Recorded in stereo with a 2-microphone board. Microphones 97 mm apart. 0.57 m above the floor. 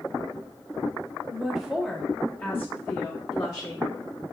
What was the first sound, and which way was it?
A woman speaking, 15° right (ahead or behind).